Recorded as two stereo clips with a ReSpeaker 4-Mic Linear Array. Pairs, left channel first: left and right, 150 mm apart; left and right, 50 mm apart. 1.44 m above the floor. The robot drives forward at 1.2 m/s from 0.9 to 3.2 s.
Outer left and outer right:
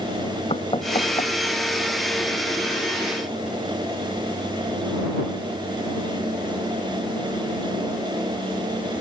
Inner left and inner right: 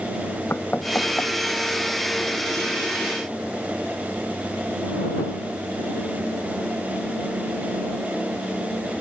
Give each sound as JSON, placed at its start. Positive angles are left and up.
{"t": 0.5, "sound": "knocking", "side_deg": 40}